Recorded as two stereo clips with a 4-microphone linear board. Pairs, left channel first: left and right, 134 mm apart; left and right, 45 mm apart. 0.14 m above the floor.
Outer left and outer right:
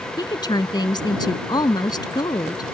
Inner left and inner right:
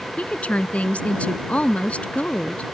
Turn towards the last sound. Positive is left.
turn(degrees=30)  # may be behind; listen again after turning